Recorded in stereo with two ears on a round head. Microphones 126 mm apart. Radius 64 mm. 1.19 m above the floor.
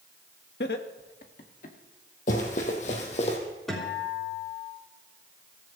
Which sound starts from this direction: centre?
A guitar, at 3.7 s.